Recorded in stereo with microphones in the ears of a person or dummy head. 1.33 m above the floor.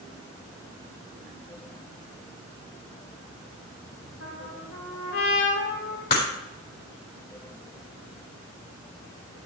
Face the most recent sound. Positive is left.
turn(degrees=60)  # may be behind; listen again after turning